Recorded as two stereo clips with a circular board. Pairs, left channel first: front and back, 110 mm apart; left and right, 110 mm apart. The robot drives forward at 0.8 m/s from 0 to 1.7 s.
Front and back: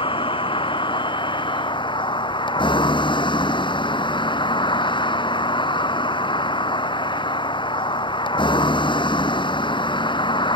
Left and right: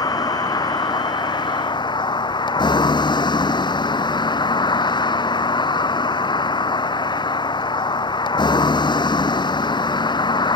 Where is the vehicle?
35° left; by 10.6 s 45° left.